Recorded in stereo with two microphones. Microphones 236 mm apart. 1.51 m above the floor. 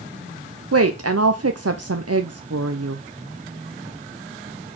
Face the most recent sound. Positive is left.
turn(degrees=-85)